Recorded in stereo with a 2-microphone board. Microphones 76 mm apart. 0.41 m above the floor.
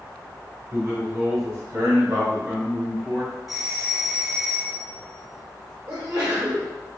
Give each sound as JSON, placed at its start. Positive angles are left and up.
{"t": 0.7, "sound": "a man speaking", "side_deg": -40, "distance_m": 1.8}
{"t": 3.5, "sound": "a doorbell", "side_deg": -5, "distance_m": 1.9}
{"t": 5.9, "sound": "a sneeze", "side_deg": -35, "distance_m": 1.1}